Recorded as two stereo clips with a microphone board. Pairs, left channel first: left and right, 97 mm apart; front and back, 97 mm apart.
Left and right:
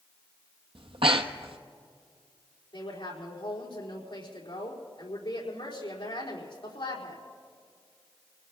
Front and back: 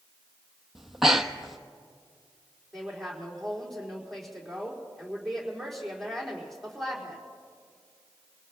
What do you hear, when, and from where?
0.8 s breathing: 95° right, 0.8 m
2.7 s a woman speaking: 85° left, 4.5 m